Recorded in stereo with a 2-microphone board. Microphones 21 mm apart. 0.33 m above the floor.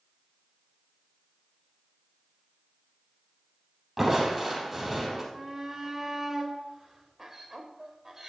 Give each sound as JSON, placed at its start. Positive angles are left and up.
{"t": 4.0, "sound": "crushing", "side_deg": -15, "distance_m": 4.0}
{"t": 5.3, "sound": "a shout", "side_deg": -20, "distance_m": 1.2}